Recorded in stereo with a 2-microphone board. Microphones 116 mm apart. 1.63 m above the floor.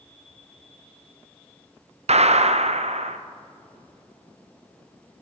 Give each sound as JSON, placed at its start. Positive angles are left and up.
{"t": 2.1, "sound": "a gunshot", "side_deg": -70, "distance_m": 0.5}